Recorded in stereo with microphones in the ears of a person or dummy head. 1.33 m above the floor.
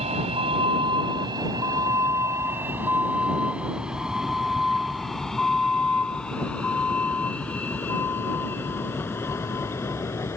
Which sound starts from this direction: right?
A vehicle, at 0.0 s.